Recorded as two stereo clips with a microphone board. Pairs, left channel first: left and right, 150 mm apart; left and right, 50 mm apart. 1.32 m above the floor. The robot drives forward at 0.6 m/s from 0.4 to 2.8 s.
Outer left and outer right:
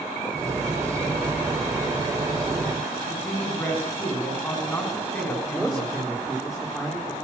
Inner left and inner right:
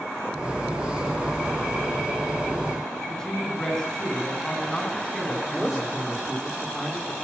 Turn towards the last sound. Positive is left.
turn(degrees=0)  # may be behind; listen again after turning